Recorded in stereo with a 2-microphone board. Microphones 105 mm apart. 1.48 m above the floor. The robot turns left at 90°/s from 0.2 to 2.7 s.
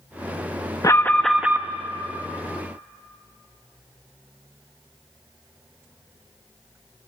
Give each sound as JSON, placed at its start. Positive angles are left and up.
{"t": 0.8, "sound": "an alarm", "azimuth_deg": 45, "distance_m": 1.0}